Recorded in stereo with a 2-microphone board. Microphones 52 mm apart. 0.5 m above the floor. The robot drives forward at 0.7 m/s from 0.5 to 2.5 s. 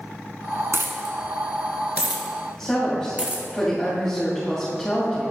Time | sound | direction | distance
0.7 | a dropped coin | 60° right (ahead or behind) | 1.1 m
2.6 | a woman speaking | 5° left (ahead or behind) | 2.5 m